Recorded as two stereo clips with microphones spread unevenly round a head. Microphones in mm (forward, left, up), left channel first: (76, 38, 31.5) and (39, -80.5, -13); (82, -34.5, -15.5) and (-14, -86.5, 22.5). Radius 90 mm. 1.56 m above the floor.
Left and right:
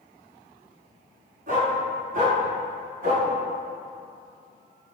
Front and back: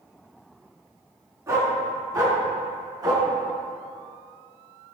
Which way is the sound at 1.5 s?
100° right.